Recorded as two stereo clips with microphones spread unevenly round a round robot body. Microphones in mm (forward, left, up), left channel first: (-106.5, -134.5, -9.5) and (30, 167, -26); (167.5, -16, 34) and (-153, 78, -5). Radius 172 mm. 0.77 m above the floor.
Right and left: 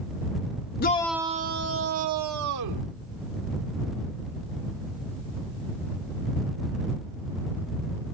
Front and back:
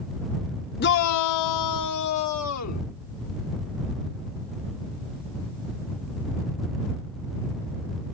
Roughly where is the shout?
Right.